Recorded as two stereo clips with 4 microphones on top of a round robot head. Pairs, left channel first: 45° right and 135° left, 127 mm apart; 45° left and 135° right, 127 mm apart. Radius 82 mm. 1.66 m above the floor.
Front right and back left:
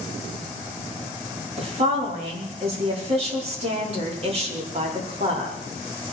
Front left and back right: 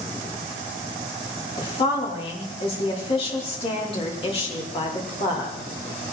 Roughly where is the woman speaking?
Left.